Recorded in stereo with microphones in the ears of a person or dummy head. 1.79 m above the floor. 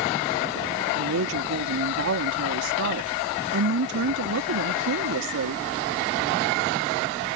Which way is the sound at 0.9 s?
80° right.